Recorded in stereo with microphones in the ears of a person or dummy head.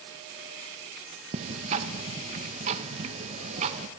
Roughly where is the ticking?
Right.